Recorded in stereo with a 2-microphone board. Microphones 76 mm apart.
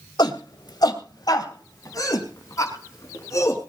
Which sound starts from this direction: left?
A shout, at 0.2 s.